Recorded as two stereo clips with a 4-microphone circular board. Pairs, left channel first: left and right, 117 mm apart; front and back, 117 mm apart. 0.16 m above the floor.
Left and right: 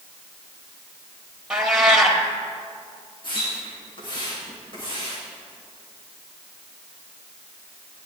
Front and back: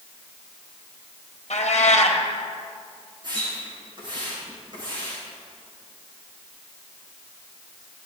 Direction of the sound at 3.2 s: 135° left.